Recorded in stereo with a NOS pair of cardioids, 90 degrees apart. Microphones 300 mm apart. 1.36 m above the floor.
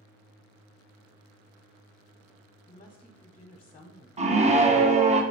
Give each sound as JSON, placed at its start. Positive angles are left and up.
{"t": 2.7, "sound": "a woman speaking", "azimuth_deg": 20, "distance_m": 0.8}
{"t": 4.2, "sound": "a scream", "azimuth_deg": -20, "distance_m": 1.0}